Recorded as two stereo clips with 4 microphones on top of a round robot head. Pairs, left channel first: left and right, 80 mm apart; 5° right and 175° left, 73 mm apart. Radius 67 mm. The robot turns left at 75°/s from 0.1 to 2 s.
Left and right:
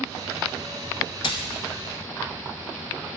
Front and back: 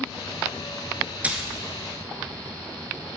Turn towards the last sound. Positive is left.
turn(degrees=50)